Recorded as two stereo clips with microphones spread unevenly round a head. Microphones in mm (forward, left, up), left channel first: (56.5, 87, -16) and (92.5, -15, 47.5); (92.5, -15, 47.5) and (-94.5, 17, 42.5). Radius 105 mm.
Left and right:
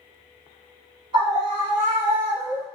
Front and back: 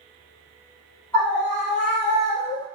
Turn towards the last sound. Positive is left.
turn(degrees=-90)